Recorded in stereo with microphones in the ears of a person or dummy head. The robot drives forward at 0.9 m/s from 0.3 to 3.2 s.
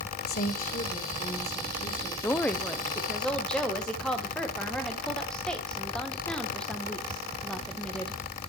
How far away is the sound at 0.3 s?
About 1.8 m.